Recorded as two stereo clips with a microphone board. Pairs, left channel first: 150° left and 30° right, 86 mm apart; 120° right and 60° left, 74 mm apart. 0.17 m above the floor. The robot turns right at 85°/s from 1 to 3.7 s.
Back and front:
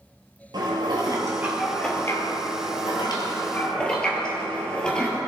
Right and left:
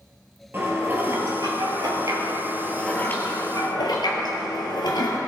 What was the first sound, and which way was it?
Dishes clattering, straight ahead.